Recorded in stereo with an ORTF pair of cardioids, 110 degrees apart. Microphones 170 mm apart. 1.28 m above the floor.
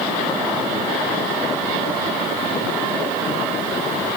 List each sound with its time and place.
Only background noise.